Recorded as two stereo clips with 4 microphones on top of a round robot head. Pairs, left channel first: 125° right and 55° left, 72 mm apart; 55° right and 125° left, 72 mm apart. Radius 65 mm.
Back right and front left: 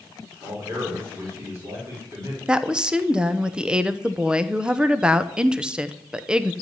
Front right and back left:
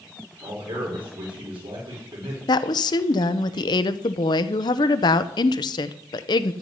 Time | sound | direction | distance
0.4 | a man speaking | 115° left | 5 m
2.5 | a woman speaking | 25° right | 0.8 m